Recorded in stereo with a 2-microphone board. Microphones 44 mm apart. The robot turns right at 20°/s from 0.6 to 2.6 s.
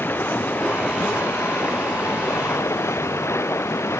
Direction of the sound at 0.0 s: 50° left.